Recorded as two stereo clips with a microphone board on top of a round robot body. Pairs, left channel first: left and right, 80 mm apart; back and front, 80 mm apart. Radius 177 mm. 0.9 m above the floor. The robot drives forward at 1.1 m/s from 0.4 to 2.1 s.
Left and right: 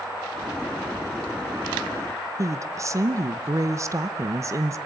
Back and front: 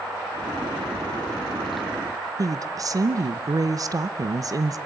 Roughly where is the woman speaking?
Ahead right.